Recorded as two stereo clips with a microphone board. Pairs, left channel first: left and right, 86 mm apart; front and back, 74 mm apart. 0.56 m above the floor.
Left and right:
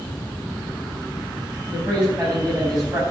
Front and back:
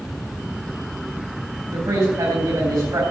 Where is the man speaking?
165° right, 4.5 m.